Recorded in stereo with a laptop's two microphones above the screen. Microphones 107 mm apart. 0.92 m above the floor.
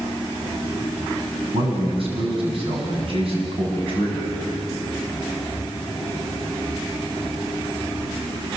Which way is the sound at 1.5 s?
60° right (ahead or behind).